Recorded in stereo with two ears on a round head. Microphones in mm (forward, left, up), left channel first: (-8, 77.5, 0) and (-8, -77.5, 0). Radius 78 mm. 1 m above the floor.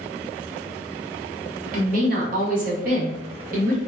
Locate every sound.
1.7 s a woman speaking: 50° right (ahead or behind), 1.0 m